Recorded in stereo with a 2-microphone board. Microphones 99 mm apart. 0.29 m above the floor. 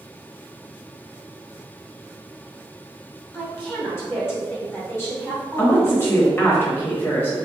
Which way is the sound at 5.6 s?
25° left (ahead or behind).